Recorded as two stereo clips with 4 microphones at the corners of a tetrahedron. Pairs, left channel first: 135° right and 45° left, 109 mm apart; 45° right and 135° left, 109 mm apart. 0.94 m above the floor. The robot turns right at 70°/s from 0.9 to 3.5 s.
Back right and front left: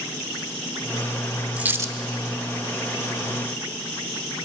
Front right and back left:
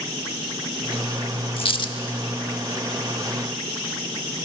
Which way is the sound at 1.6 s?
30° right.